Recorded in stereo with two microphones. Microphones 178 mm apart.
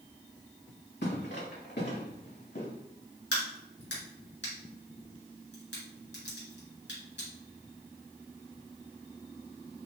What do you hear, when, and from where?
1.0 s footsteps: 75° left (ahead or behind), 3.5 m; by 2.7 s 60° left (ahead or behind), 4.5 m
3.3 s a crack: 85° left, 3.5 m